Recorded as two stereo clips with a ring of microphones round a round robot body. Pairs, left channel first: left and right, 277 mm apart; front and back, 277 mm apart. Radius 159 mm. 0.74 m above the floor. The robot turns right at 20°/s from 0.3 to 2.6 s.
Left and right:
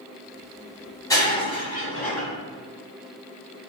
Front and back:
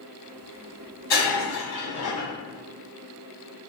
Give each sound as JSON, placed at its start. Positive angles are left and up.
{"t": 1.1, "sound": "breaking glass", "azimuth_deg": 15, "distance_m": 1.5}